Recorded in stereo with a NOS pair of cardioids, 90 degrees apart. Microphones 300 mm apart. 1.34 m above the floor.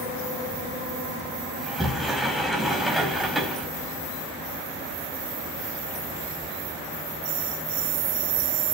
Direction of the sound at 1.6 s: Straight ahead.